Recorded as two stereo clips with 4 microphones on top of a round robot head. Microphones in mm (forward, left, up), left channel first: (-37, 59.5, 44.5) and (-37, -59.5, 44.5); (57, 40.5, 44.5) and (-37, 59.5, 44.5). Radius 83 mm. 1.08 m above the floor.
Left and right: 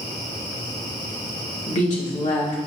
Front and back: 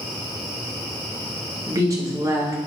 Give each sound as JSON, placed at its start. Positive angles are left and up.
{"t": 1.7, "sound": "a woman speaking", "azimuth_deg": 110, "distance_m": 1.2}